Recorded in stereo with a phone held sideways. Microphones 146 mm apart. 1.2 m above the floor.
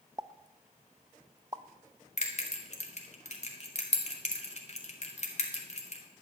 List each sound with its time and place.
0.2 s a pop: 25° right (ahead or behind), 0.5 m
2.2 s a bell: 50° left (ahead or behind), 1.9 m